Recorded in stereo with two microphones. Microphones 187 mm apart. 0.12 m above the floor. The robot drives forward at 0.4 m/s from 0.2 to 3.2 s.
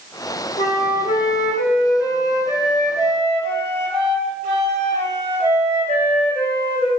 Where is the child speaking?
I don't hear a child speaking.